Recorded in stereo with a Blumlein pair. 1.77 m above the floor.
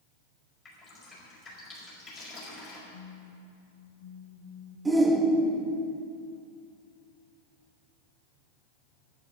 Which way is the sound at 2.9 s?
45° left.